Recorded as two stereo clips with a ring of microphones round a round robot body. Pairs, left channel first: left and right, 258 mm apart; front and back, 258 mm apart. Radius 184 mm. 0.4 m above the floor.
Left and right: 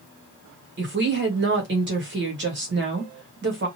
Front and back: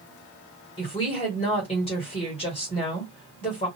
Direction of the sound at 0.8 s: 65° right.